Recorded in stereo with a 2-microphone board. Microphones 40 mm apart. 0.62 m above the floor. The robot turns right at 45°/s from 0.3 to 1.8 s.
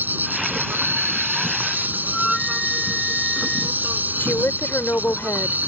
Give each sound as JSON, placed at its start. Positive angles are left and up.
{"t": 0.0, "sound": "an insect", "azimuth_deg": -120}
{"t": 2.0, "sound": "a flute", "side_deg": 10}
{"t": 4.2, "sound": "a woman speaking", "side_deg": 70}